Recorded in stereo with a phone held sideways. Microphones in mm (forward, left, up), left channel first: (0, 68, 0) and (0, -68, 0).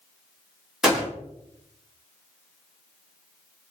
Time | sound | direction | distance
0.8 | a gunshot | 5° right (ahead or behind) | 2 m